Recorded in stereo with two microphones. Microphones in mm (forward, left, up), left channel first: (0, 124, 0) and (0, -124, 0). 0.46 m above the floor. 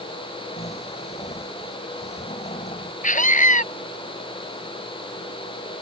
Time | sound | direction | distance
0.6 | snoring | 25° left (ahead or behind) | ?
3.0 | a scream | 30° left (ahead or behind) | ?